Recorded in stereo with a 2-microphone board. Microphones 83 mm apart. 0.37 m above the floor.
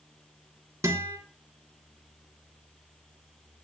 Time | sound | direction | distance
0.8 | a guitar | 35° right (ahead or behind) | 3.5 m